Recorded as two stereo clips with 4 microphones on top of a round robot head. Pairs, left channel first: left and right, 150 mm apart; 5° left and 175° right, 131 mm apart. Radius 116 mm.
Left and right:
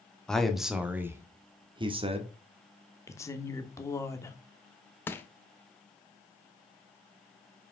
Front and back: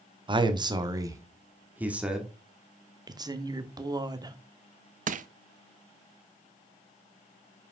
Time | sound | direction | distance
0.3 | a man speaking | 175° left | 1.3 m
3.1 | a woman speaking | 150° left | 1.1 m
5.1 | crushing | 165° left | 0.5 m